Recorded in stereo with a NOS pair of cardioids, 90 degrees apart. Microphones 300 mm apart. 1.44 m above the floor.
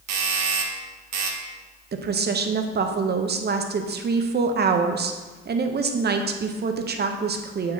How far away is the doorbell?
About 1.0 m.